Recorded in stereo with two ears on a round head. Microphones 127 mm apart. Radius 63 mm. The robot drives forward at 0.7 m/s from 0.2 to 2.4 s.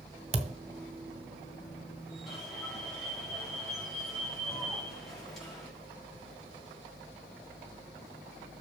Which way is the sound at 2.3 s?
5° left (ahead or behind).